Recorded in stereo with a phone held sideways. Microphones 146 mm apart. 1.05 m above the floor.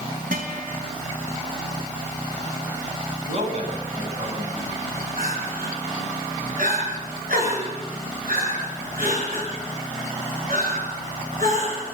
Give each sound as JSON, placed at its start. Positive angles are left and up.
{"t": 0.3, "sound": "a guitar", "side_deg": -75, "distance_m": 3.0}
{"t": 3.2, "sound": "a man speaking", "side_deg": -50, "distance_m": 7.0}
{"t": 5.2, "sound": "crying", "side_deg": -75, "distance_m": 7.0}